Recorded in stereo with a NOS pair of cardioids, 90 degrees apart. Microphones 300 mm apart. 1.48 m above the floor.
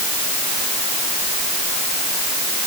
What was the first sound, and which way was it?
Only background noise.